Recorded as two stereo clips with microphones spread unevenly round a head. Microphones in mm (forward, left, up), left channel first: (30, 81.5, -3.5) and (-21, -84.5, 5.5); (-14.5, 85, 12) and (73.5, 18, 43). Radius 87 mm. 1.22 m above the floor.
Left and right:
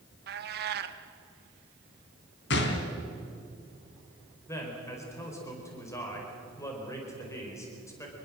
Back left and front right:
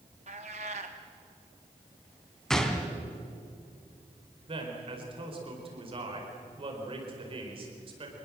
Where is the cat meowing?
80° right, 1.2 m.